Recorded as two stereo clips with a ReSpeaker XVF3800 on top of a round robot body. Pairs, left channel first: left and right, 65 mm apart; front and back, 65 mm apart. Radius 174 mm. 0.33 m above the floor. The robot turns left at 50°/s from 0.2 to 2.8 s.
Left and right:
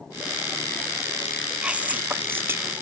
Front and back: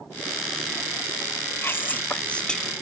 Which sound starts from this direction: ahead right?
Whispering, at 1.6 s.